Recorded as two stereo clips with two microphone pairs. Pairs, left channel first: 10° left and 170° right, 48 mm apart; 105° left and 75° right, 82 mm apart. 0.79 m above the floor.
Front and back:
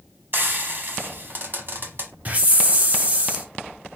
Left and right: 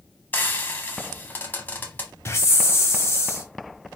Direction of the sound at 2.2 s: 150° left.